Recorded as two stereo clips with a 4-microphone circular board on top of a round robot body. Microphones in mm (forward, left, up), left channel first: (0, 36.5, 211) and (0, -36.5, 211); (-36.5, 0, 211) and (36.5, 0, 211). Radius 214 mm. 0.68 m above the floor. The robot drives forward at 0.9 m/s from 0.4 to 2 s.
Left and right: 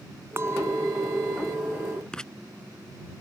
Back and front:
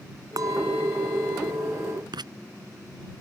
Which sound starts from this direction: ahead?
Writing, at 2.1 s.